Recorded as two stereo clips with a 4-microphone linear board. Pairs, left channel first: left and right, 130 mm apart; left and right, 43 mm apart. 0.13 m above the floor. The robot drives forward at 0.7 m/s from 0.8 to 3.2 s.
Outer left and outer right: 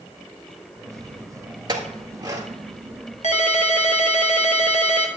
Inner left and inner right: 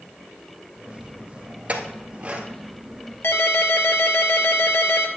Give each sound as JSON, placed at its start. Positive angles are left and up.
{"t": 1.7, "sound": "a clink", "side_deg": -30, "distance_m": 1.6}
{"t": 3.2, "sound": "a ringtone", "side_deg": 65, "distance_m": 1.3}